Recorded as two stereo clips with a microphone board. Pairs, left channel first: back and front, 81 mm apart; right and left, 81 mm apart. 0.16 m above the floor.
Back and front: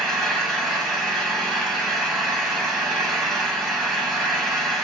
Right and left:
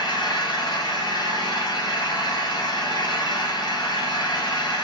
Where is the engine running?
90° right, 1.2 m.